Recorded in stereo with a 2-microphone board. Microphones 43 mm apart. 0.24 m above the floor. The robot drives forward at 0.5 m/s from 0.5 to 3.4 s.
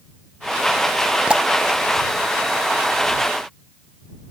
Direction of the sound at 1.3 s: 25° right (ahead or behind).